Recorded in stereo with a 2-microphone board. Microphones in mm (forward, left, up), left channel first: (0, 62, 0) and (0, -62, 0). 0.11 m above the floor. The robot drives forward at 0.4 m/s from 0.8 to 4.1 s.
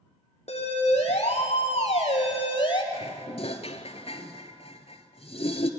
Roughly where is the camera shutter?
No camera shutter in this recording.